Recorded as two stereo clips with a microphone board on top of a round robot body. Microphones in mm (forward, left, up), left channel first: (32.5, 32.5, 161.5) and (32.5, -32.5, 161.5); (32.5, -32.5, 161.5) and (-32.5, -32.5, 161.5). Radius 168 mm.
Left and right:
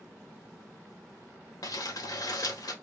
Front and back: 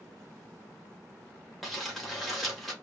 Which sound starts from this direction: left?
Crumpling, at 1.6 s.